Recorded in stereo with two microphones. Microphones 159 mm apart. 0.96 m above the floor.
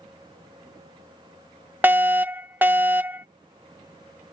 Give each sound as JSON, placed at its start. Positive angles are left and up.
{"t": 1.8, "sound": "a fire alarm", "side_deg": -15}